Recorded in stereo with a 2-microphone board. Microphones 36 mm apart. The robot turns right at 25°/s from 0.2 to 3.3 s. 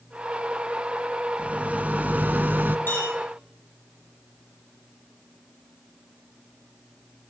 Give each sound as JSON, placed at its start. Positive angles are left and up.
{"t": 1.4, "sound": "a rattle", "azimuth_deg": -135, "distance_m": 0.9}
{"t": 2.9, "sound": "a clink", "side_deg": 60, "distance_m": 4.0}